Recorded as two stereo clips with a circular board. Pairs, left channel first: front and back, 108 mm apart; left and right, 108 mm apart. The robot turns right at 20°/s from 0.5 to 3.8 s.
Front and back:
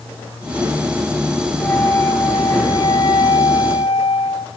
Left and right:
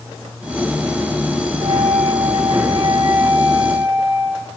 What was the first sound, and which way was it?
A flute, 65° right.